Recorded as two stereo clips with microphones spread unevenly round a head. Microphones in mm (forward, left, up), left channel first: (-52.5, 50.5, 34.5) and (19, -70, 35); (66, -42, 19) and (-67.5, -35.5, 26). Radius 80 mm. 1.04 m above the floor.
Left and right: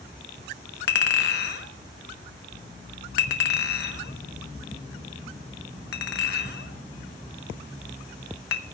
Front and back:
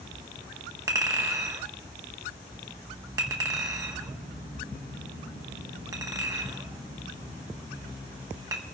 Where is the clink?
105° left, 1.1 m.